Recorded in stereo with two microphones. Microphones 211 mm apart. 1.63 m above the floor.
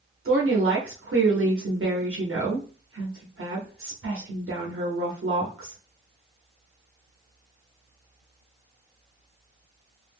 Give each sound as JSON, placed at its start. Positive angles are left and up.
{"t": 0.2, "sound": "a woman speaking", "side_deg": -80, "distance_m": 0.7}